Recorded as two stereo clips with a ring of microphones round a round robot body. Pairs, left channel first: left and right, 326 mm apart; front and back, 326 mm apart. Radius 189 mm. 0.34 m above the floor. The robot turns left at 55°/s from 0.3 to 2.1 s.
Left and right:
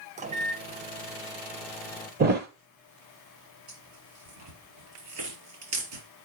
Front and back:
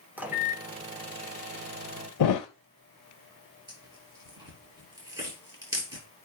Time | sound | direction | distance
0.2 | a microwave | 105° right | 0.7 m
2.2 | a thud | 30° right | 0.8 m
3.7 | tearing paper | 100° right | 5.5 m